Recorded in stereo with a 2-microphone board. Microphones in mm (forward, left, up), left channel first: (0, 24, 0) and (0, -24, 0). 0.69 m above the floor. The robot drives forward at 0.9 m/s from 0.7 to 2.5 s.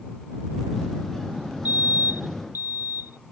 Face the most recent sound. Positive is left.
turn(degrees=-45)  # may be behind; listen again after turning